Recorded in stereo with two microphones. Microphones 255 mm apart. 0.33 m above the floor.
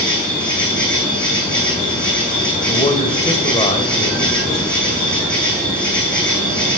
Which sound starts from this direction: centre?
An insect, at 0.0 s.